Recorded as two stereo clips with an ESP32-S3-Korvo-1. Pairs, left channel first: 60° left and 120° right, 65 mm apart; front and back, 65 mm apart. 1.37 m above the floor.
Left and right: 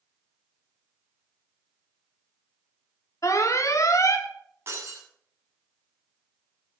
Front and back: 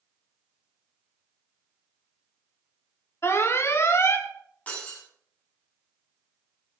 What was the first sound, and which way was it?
An alarm, 40° left.